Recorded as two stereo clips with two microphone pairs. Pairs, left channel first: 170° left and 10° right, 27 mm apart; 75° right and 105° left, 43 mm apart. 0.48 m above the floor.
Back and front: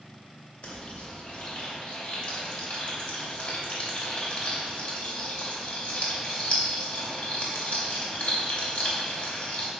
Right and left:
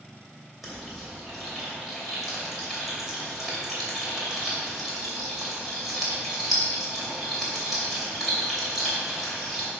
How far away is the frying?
About 2.5 m.